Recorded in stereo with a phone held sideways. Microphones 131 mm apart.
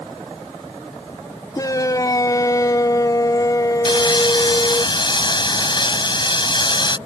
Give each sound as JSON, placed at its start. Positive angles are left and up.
{"t": 1.6, "sound": "a shout", "side_deg": 30}
{"t": 3.9, "sound": "sawing", "side_deg": 35}